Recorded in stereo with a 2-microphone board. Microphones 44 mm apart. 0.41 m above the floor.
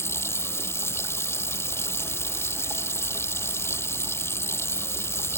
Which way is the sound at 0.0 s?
70° left (ahead or behind).